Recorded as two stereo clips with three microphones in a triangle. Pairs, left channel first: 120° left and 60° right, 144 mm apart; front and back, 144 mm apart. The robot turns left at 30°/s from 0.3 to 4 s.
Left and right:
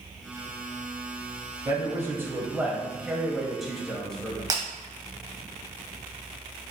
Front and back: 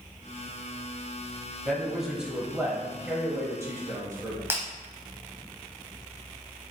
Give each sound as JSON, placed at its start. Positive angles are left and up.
{"t": 1.6, "sound": "a man speaking", "azimuth_deg": -85, "distance_m": 1.0}
{"t": 4.5, "sound": "breaking glass", "azimuth_deg": -110, "distance_m": 0.9}